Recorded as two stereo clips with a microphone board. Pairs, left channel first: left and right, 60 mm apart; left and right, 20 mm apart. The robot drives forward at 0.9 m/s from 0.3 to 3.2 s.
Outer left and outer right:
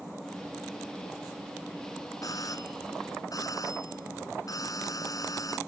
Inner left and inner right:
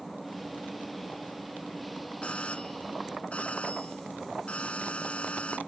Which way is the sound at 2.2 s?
85° left.